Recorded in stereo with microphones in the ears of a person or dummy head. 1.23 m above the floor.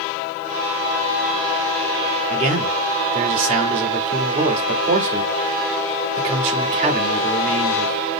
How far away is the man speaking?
About 2 m.